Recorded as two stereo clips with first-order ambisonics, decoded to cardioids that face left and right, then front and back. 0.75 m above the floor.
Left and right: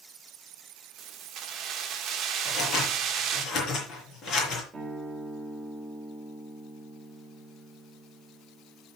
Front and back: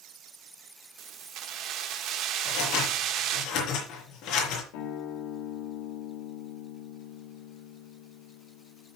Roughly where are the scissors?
Ahead left.